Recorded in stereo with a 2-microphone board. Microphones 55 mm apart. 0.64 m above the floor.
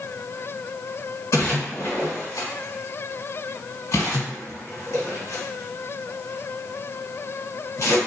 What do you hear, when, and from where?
1.3 s a splash: 65° left (ahead or behind), 1.5 m